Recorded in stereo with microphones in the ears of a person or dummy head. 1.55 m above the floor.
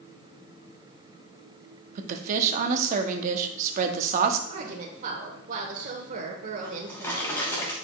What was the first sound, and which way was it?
A woman speaking, 40° right (ahead or behind).